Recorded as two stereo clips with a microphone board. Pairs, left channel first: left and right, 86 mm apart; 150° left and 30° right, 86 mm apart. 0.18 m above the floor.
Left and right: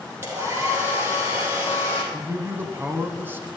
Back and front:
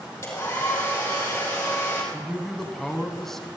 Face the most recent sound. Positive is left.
turn(degrees=-125)